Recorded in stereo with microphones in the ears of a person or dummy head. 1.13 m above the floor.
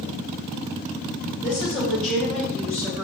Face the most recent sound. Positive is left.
turn(degrees=15)  # may be behind; listen again after turning